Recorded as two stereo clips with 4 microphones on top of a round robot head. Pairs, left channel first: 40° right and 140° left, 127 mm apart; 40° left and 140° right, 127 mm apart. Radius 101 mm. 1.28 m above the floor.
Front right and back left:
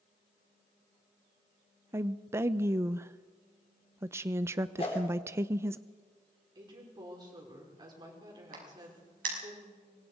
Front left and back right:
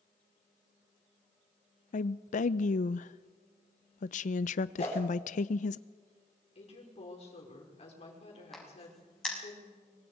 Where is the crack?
130° left, 6.5 m.